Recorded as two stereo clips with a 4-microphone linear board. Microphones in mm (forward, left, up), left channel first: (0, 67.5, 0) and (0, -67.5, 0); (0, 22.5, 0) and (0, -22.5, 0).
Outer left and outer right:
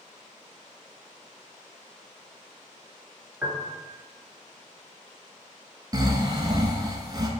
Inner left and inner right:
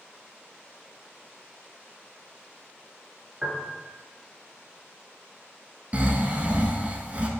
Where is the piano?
15° right (ahead or behind), 0.6 m.